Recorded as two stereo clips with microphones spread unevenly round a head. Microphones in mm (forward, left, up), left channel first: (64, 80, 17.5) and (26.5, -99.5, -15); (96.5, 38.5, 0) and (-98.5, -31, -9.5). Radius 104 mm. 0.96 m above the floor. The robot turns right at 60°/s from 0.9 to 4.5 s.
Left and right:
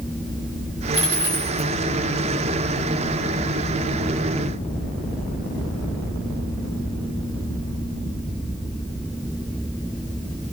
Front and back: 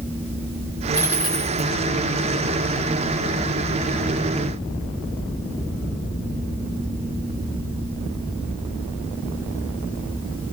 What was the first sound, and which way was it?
A dropped coin, 90° right.